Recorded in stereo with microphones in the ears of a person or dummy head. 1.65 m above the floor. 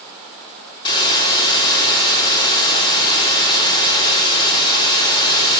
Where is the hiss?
25° left (ahead or behind), 5 m.